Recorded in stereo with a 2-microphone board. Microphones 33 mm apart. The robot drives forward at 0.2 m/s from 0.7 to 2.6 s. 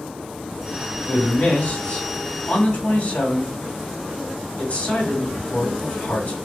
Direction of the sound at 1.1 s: 55° left (ahead or behind).